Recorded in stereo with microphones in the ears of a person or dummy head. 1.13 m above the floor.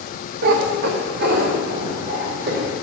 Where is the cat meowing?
60° right (ahead or behind), 0.6 m.